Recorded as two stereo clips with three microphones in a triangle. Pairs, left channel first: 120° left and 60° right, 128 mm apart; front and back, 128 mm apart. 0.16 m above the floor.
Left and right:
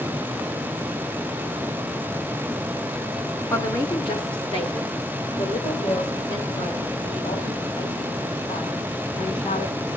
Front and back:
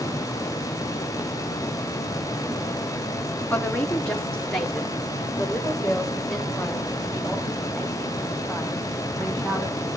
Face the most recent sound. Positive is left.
turn(degrees=90)